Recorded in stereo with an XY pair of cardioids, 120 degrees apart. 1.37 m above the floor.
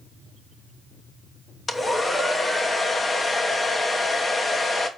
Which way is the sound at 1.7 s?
25° left.